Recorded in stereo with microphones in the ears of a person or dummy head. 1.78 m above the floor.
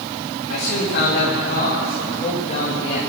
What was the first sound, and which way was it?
A man speaking, 60° left (ahead or behind).